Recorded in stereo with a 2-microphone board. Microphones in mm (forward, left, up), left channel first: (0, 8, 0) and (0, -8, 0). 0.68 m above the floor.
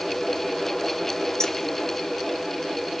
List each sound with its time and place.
1.4 s keys jangling: 40° left (ahead or behind), 1.2 m